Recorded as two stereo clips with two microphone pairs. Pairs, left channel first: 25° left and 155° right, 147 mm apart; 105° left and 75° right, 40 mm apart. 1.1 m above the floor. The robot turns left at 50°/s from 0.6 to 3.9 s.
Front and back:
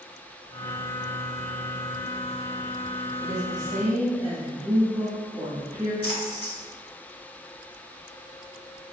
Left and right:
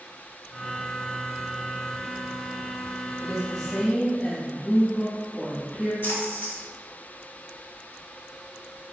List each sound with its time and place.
3.2 s a woman speaking: 165° right, 1.4 m; by 5.9 s 160° left, 1.4 m
6.0 s a splash: 75° left, 1.2 m